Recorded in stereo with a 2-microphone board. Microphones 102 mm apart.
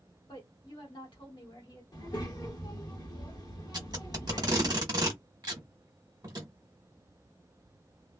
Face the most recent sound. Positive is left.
turn(degrees=-40)  # may be behind; listen again after turning